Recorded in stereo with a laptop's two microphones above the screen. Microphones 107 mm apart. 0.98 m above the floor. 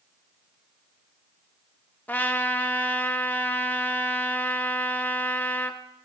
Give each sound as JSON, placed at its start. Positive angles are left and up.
{"t": 2.1, "sound": "a trumpet", "side_deg": 15, "distance_m": 0.8}